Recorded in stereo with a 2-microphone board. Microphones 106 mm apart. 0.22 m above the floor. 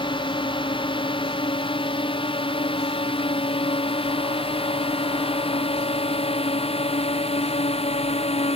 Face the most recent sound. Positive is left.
turn(degrees=70)  # may be behind; listen again after turning